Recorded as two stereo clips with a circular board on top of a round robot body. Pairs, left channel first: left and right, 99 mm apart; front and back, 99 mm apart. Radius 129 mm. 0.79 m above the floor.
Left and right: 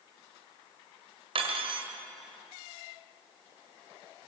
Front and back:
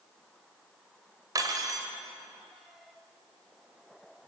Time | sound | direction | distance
1.4 | cutlery clinking | 125° right | 2.5 m